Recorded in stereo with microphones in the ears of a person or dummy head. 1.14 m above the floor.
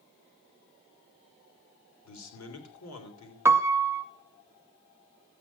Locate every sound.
2.0 s a man speaking: 85° left, 3.5 m
3.5 s a piano: 15° right (ahead or behind), 0.7 m